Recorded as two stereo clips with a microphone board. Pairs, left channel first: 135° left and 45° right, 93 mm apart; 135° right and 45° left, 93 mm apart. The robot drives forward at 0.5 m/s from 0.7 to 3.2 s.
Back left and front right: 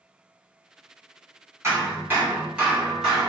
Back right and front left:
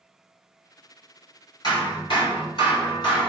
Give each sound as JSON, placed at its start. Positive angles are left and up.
{"t": 1.6, "sound": "hammering", "azimuth_deg": -100, "distance_m": 1.2}